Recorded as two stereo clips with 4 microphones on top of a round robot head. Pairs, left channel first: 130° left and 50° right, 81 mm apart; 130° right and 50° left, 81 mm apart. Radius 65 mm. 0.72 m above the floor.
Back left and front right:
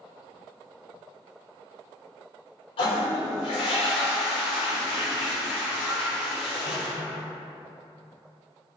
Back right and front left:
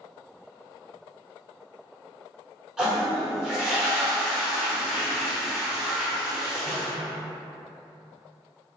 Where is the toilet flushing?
135° left, 1.1 m.